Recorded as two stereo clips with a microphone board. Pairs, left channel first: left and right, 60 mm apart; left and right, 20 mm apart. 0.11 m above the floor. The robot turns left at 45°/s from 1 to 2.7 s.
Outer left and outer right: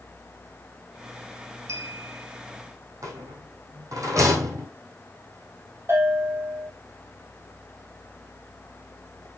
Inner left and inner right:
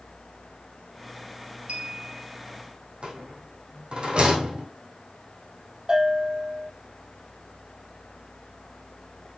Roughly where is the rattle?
Right.